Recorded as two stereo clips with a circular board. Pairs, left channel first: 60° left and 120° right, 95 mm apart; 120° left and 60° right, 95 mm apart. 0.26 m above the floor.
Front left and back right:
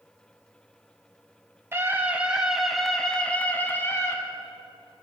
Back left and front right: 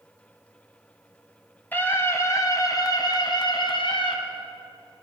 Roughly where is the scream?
Behind.